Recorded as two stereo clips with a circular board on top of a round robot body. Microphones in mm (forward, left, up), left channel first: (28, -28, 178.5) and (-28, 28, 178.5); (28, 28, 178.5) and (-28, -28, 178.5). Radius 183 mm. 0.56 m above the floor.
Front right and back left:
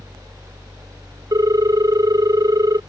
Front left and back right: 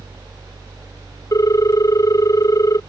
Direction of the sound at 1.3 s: 95° left.